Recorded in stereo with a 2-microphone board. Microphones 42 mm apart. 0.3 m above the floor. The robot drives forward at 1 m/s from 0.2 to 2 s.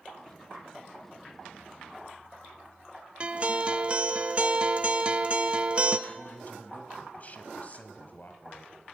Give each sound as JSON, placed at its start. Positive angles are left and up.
{"t": 3.2, "sound": "a guitar", "side_deg": -25, "distance_m": 0.9}
{"t": 6.1, "sound": "a man speaking", "side_deg": 40, "distance_m": 2.5}